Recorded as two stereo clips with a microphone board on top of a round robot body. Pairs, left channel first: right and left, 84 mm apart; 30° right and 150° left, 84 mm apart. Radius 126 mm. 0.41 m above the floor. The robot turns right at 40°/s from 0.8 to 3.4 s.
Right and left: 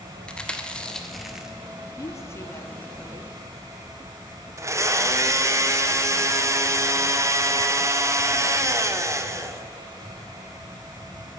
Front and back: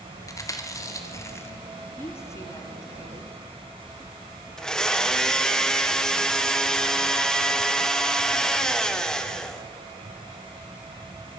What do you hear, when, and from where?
0.3 s chewing: 20° right, 1.8 m; by 1.5 s 10° left, 1.8 m
2.0 s a woman speaking: 70° right, 1.6 m; by 3.3 s 20° right, 1.6 m
4.6 s a blender: 50° left, 1.4 m